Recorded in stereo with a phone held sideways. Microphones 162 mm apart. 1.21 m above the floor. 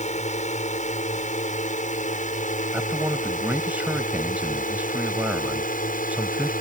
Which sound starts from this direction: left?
A drone, at 0.0 s.